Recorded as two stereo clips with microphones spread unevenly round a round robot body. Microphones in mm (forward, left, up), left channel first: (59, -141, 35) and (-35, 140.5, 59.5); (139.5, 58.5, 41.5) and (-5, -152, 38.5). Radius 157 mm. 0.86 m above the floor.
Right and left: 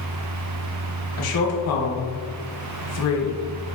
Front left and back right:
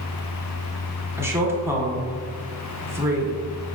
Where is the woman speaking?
45° right, 1.0 m.